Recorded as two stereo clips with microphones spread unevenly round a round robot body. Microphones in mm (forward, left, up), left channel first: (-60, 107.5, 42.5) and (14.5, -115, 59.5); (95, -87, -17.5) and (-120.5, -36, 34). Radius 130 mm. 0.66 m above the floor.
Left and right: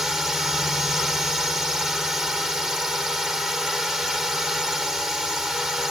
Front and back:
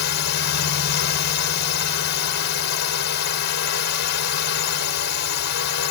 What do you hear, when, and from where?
0.0 s a drone: 20° left